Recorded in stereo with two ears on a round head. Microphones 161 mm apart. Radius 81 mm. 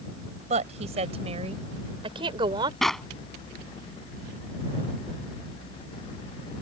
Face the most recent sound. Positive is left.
turn(degrees=0)  # may be behind; listen again after turning